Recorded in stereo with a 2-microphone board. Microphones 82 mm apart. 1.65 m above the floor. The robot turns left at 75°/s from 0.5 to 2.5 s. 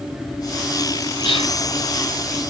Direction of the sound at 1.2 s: 85° left.